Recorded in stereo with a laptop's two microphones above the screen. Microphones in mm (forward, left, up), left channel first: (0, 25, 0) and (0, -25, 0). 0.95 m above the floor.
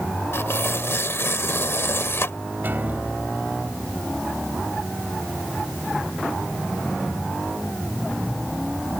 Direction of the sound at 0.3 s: 60° left (ahead or behind).